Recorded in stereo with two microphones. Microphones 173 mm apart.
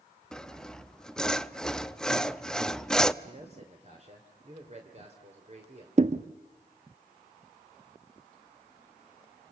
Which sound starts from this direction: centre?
Sawing, at 0.3 s.